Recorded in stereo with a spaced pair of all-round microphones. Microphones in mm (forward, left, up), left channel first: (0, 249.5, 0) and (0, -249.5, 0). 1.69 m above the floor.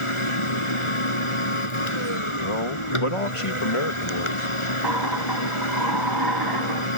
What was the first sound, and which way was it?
A machine running, 65° left (ahead or behind).